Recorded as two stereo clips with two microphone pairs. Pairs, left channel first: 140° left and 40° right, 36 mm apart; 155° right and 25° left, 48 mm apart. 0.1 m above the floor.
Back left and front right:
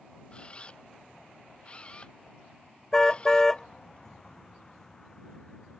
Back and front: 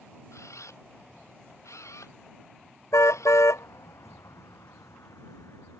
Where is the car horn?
145° right.